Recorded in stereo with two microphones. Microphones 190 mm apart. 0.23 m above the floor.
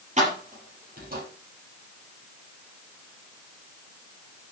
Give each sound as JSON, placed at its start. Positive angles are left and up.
{"t": 0.2, "sound": "keys jangling", "side_deg": -40, "distance_m": 4.5}